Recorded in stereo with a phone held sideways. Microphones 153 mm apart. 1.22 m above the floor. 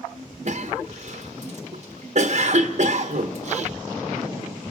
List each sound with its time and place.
0.5 s a cough: 50° right (ahead or behind), 1.4 m